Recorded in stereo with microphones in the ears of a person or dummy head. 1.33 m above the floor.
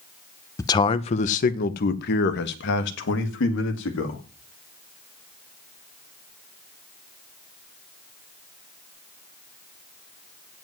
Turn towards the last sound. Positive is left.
turn(degrees=70)  # may be behind; listen again after turning